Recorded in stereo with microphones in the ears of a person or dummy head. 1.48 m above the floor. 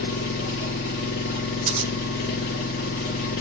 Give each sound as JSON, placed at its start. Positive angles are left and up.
{"t": 0.0, "sound": "an engine running", "side_deg": 35, "distance_m": 0.9}
{"t": 1.7, "sound": "scissors", "side_deg": -30, "distance_m": 2.5}